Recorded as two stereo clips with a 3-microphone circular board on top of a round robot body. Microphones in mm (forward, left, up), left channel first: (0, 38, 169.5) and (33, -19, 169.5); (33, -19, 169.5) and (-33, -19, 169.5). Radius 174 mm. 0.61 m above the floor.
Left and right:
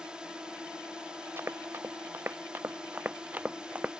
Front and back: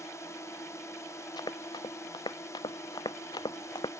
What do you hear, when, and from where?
0.0 s a drone: 15° left
1.4 s running footsteps: 5° right; by 3.9 s 10° left